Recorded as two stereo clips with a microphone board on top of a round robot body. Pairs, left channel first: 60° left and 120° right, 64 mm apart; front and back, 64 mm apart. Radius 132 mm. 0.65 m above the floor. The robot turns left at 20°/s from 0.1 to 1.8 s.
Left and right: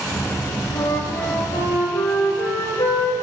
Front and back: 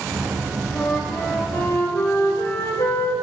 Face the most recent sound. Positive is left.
turn(degrees=50)